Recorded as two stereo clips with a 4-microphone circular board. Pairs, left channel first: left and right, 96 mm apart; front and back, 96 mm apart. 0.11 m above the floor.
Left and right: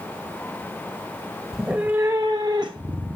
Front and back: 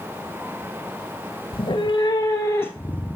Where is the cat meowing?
5° right, 1.0 m; by 3.1 s 75° right, 1.6 m.